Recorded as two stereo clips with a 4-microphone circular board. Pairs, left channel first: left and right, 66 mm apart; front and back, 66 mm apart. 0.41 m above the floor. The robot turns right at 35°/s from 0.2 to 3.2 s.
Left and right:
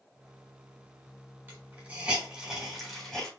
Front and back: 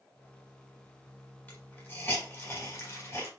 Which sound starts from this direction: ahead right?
A hiss, at 1.5 s.